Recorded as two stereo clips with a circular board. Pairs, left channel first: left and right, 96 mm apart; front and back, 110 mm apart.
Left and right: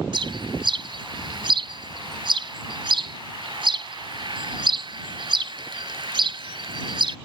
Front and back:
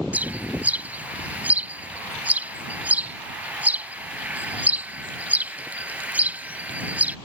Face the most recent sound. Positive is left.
turn(degrees=-105)